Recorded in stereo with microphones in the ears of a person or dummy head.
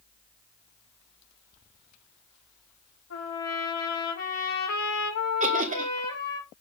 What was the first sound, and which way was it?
A trumpet, 85° left.